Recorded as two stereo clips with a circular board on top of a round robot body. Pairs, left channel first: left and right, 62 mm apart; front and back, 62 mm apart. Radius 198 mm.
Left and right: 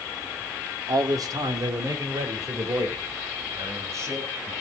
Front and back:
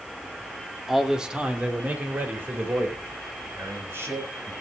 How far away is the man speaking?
About 2.5 m.